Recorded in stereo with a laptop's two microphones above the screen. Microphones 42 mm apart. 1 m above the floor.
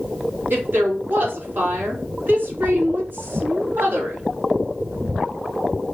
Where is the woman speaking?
55° right (ahead or behind), 2.5 m.